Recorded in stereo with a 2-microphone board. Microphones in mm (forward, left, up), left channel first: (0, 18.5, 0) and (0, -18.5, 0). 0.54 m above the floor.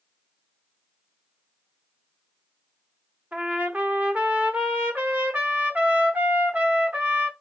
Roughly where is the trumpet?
Right.